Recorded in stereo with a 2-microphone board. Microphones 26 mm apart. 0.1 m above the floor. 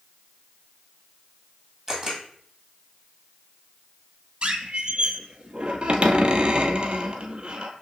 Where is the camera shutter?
10° right (ahead or behind), 1.7 m.